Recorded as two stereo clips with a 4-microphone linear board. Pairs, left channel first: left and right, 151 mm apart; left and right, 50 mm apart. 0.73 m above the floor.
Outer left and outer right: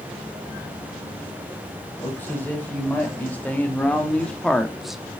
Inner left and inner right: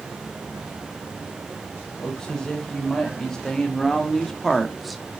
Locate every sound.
2.0 s a man speaking: 15° left (ahead or behind), 5 m; by 5.0 s 5° right (ahead or behind), 1.2 m